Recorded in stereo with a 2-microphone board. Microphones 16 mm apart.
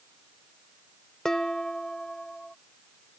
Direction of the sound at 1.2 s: 40° left (ahead or behind).